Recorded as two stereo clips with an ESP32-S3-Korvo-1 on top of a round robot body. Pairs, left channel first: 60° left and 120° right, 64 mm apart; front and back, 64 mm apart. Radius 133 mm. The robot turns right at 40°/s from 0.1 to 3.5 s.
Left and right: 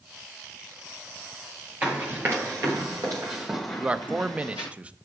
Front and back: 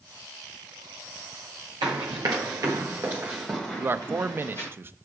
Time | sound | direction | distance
1.8 | running footsteps | 170° left | 1.3 m
3.8 | a man speaking | 175° right | 0.8 m